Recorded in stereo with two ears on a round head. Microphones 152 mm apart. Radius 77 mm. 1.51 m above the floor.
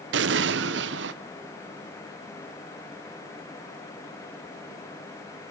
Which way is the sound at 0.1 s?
80° right.